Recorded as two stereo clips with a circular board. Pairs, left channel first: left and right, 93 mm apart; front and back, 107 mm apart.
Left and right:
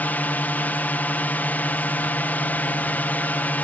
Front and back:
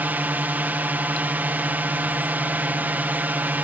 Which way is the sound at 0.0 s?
130° left.